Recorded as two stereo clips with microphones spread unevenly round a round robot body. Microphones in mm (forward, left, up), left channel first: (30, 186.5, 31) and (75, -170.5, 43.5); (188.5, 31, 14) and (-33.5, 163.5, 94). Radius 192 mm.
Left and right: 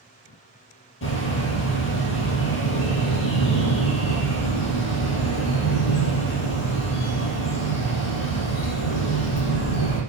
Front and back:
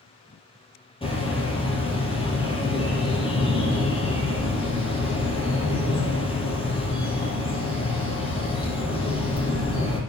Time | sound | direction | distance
1.0 | a bird | 40° left | 4.5 m